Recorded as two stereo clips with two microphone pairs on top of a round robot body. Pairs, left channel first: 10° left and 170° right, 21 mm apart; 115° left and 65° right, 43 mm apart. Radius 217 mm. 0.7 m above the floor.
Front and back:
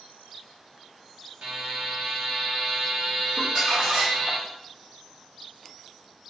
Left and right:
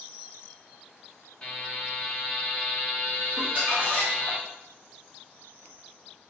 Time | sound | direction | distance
1.4 | a buzzer | 175° right | 1.6 m
3.4 | crumpling | 115° right | 2 m